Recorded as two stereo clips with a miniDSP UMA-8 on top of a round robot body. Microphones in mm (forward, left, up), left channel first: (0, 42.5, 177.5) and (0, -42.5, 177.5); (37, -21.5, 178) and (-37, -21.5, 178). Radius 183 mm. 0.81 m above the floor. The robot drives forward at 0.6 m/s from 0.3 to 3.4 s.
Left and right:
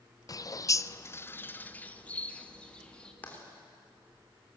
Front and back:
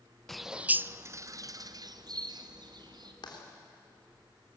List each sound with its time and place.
0.3 s a bird: 85° left, 0.6 m; by 3.1 s 170° left, 1.8 m
3.2 s writing: 20° left, 3.5 m